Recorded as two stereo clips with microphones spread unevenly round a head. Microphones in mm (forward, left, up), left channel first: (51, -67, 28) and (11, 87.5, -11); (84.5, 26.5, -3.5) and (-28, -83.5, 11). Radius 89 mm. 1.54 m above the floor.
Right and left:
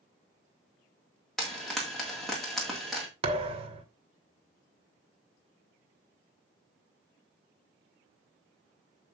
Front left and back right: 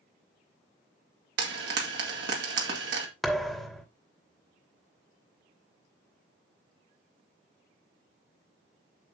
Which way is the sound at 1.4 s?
160° right.